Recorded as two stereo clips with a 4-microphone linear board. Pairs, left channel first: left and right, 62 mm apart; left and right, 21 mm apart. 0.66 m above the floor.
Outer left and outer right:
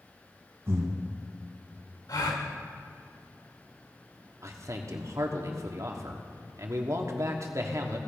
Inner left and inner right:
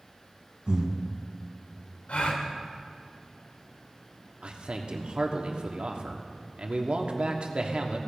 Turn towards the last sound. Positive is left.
turn(degrees=-55)  # may be behind; listen again after turning